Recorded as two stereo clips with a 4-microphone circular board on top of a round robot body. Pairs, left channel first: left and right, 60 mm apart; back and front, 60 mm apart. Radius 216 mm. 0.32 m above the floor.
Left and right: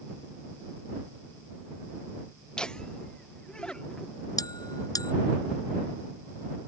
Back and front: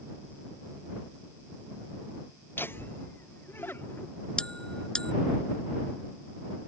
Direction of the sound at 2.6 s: 160° left.